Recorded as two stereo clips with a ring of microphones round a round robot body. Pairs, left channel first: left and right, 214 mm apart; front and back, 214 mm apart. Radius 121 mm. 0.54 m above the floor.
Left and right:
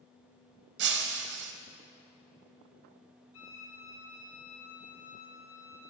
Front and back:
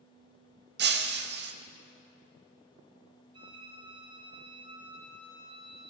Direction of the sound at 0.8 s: 140° right.